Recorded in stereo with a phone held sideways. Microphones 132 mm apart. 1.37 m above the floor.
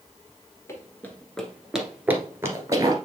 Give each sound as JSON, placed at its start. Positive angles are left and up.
{"t": 0.7, "sound": "running footsteps", "side_deg": 20, "distance_m": 1.4}